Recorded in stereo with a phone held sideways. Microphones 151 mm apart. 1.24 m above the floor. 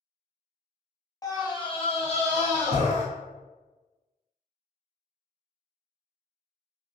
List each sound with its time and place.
1.2 s a scream: 25° left (ahead or behind), 0.7 m; by 3.0 s 45° left (ahead or behind), 1.0 m